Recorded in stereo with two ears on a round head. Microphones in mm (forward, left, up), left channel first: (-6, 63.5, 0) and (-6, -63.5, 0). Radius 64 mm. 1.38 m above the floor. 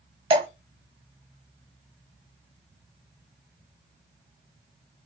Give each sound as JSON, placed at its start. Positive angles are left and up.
{"t": 0.3, "sound": "dripping", "side_deg": -40, "distance_m": 1.5}